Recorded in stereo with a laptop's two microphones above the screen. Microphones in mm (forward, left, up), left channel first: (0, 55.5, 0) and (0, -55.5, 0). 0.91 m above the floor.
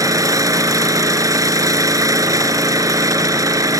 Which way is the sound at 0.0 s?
30° right (ahead or behind).